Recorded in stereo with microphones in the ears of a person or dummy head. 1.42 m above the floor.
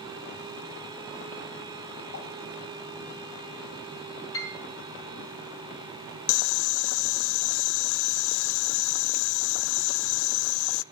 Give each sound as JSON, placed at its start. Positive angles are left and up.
{"t": 2.1, "sound": "a pop", "side_deg": 75, "distance_m": 6.5}
{"t": 4.3, "sound": "a piano", "side_deg": 20, "distance_m": 6.0}
{"t": 6.3, "sound": "boiling", "side_deg": 70, "distance_m": 0.5}